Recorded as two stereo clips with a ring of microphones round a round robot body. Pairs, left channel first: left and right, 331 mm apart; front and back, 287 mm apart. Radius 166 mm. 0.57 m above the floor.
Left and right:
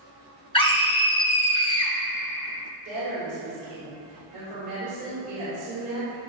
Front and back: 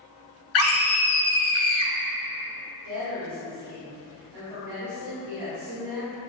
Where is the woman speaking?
155° right, 2.5 m.